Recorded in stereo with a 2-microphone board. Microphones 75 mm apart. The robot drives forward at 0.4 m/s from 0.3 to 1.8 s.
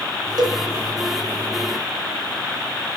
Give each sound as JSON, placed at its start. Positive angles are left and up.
{"t": 0.4, "sound": "a cowbell", "side_deg": -60, "distance_m": 1.1}